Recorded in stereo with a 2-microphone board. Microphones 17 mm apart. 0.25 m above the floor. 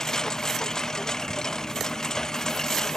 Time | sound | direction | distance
0.0 | a lawn mower | 30° left (ahead or behind) | ?